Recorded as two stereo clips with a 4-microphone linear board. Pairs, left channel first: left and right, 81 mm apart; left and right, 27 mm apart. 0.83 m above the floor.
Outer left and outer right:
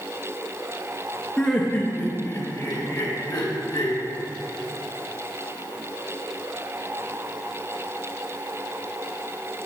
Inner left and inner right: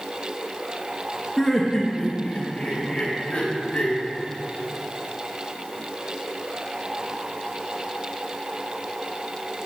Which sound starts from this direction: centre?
Laughter, at 1.4 s.